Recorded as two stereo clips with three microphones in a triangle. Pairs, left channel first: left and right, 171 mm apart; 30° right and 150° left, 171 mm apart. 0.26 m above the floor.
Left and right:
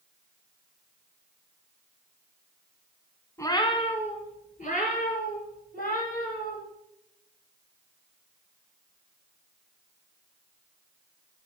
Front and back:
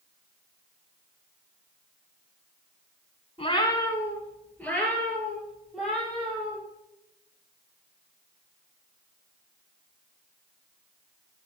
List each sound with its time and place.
3.4 s a cat meowing: 20° left, 1.1 m; by 6.6 s 60° left, 5 m